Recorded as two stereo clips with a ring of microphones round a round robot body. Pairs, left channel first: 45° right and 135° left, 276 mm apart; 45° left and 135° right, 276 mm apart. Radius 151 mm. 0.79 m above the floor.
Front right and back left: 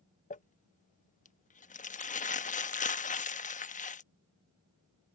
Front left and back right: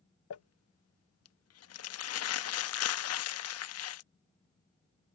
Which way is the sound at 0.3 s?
15° left.